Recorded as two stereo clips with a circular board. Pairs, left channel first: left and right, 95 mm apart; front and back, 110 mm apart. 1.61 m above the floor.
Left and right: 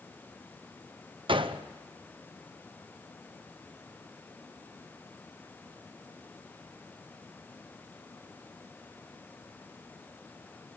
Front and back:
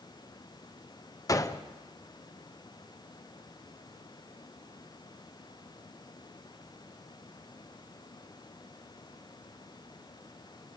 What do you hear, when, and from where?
1.3 s a gunshot: 60° right, 0.9 m